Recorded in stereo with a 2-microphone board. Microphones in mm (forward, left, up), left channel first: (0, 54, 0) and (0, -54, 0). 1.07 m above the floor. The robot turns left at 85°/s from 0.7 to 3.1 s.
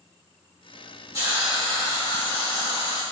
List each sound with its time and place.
1.1 s a hiss: 145° right, 1.6 m; by 3.0 s 55° left, 1.6 m